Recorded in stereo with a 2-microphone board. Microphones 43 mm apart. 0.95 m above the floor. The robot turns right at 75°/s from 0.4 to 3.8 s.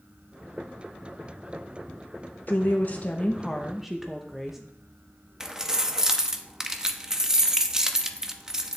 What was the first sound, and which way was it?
A woman speaking, 90° left.